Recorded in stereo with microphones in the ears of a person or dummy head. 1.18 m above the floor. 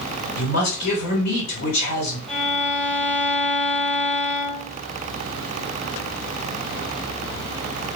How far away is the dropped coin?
I don't hear a dropped coin.